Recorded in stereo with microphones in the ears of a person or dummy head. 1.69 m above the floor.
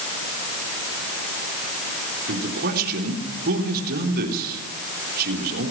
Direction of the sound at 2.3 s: 50° right (ahead or behind).